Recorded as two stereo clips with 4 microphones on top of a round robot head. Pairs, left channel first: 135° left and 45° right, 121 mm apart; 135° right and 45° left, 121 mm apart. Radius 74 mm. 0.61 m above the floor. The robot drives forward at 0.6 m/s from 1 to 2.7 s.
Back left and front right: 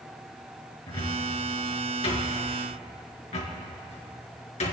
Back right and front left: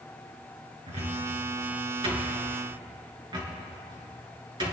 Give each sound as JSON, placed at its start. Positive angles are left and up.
{"t": 0.9, "sound": "a cupboard door", "azimuth_deg": 80, "distance_m": 3.5}